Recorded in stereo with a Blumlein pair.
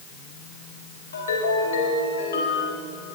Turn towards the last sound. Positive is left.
turn(degrees=70)